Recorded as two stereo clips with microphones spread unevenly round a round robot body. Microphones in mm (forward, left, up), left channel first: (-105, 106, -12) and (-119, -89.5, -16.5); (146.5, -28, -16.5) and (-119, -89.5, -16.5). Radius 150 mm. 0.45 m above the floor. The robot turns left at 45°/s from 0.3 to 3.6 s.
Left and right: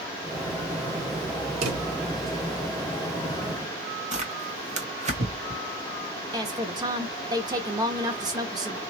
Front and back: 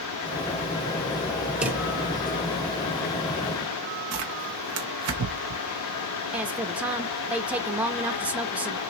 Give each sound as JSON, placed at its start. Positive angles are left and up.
{"t": 1.6, "sound": "a drawer", "azimuth_deg": -80, "distance_m": 1.1}
{"t": 4.1, "sound": "tearing paper", "azimuth_deg": -145, "distance_m": 1.4}
{"t": 6.3, "sound": "a woman speaking", "azimuth_deg": -90, "distance_m": 0.8}